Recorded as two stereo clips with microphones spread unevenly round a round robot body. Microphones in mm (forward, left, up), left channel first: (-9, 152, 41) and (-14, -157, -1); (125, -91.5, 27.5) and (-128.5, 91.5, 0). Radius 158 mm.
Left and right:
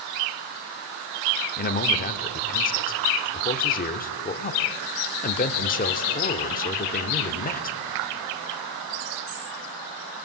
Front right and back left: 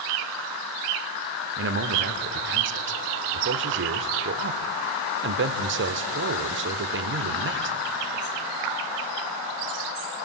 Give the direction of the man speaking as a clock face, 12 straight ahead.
7 o'clock.